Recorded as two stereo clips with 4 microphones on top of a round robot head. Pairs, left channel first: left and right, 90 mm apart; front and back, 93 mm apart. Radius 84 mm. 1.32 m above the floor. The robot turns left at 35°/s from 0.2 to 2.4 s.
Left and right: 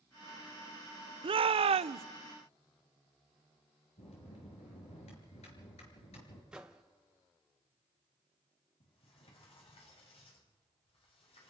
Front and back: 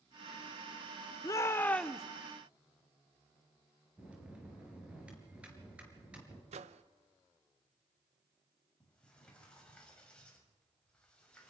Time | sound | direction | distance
1.2 | a shout | 60° right | 0.5 m
4.0 | a bell | 100° left | 5.5 m
6.5 | a microwave | 175° right | 0.8 m
8.8 | a sliding door | 80° left | 6 m